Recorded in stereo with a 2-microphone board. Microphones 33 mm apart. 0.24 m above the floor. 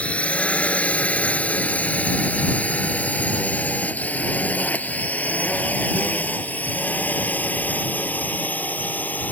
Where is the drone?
40° left (ahead or behind); by 9.3 s 60° left (ahead or behind).